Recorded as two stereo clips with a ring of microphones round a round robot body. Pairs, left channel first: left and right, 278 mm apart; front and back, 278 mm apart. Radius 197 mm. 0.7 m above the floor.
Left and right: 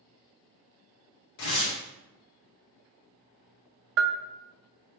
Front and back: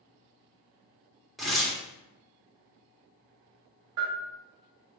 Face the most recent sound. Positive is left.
turn(degrees=-130)